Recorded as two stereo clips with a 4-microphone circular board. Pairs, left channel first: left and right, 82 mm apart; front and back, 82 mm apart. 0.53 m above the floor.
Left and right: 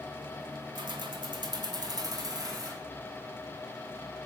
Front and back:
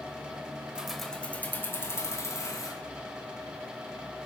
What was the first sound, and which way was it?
Keys jangling, 100° right.